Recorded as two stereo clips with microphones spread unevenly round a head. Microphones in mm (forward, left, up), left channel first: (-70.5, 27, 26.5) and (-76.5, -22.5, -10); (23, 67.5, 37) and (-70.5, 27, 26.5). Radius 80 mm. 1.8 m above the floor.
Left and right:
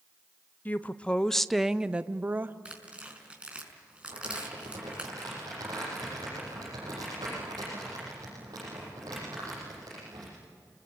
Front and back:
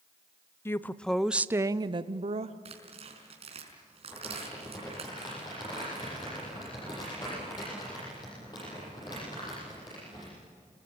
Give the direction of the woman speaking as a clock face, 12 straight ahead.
9 o'clock.